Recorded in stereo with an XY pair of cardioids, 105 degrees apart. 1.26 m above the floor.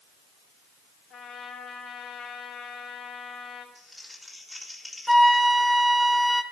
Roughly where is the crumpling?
Ahead.